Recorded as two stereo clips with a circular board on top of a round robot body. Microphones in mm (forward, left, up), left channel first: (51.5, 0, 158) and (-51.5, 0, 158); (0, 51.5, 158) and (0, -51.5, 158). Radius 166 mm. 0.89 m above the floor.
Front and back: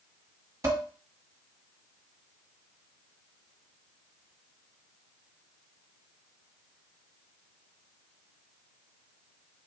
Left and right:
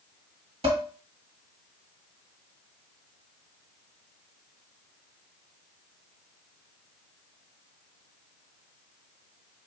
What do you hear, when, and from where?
0.6 s dishes clattering: 115° right, 1.2 m